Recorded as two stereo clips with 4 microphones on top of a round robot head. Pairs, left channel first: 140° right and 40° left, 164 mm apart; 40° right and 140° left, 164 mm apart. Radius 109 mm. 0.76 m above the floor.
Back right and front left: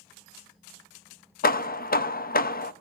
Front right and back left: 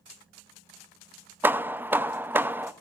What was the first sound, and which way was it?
Hammering, 145° right.